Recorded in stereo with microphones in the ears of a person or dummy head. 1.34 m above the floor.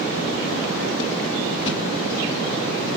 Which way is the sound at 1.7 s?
30° left (ahead or behind).